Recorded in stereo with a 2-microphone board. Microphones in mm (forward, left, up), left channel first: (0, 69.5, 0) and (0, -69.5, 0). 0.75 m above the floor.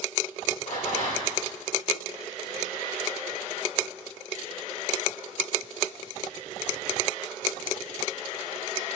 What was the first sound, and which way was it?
A rattle, 65° left (ahead or behind).